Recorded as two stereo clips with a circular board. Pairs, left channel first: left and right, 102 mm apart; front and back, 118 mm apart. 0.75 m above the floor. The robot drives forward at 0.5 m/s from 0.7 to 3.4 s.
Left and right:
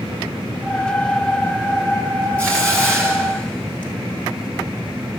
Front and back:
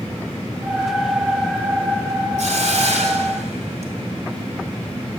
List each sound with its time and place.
2.4 s a hiss: 165° left, 4 m